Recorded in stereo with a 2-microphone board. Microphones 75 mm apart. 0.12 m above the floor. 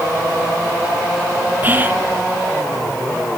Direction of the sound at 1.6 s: 25° right (ahead or behind).